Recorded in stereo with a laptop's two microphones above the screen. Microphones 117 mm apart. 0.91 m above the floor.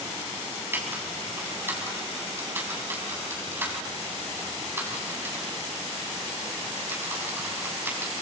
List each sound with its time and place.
0.7 s typing on a keyboard: 20° right (ahead or behind), 5.5 m